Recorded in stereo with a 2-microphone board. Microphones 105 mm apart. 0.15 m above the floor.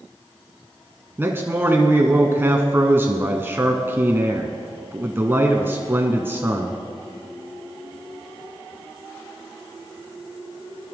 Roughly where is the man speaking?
Right.